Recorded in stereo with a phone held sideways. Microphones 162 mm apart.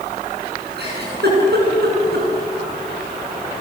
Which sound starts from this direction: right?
A giggle, at 0.8 s.